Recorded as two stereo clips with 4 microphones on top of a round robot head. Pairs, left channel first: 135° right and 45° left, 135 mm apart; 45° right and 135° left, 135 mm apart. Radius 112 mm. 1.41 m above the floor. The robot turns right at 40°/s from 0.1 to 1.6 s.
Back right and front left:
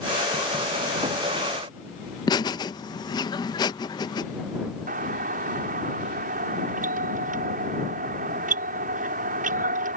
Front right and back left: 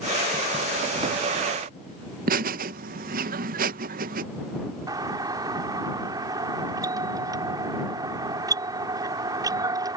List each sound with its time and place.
2.3 s laughter: 160° left
4.9 s a doorbell: 70° left